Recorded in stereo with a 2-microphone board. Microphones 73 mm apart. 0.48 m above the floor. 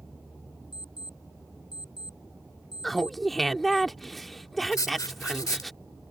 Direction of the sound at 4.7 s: 55° left (ahead or behind).